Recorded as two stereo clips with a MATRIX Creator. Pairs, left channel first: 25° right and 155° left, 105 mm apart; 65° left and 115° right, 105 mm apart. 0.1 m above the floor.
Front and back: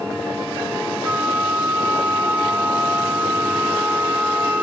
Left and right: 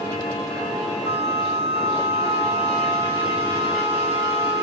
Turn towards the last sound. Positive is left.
turn(degrees=-130)